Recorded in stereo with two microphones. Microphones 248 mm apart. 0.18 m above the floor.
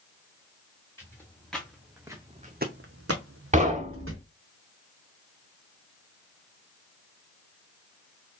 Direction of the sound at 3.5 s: 30° right (ahead or behind).